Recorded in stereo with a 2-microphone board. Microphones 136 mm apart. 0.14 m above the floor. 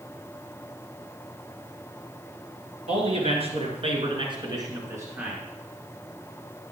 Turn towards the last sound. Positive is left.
turn(degrees=-10)  # may be behind; listen again after turning